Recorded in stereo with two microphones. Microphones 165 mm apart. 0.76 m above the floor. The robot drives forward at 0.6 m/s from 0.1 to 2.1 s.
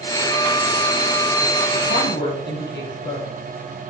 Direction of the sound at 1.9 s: 85° left.